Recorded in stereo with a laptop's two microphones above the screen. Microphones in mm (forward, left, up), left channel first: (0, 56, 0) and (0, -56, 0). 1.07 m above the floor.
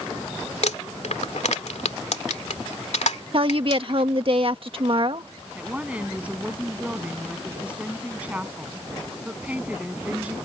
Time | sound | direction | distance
0.6 | crumpling | 90° left | ?
3.3 | a woman speaking | 50° right (ahead or behind) | ?
5.5 | a woman speaking | 10° right (ahead or behind) | ?